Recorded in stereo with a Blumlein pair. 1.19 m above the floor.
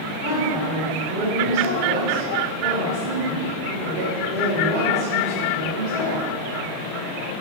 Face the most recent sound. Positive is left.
turn(degrees=-45)